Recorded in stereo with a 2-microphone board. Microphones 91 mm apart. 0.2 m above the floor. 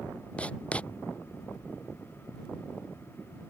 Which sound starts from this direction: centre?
Writing, at 0.4 s.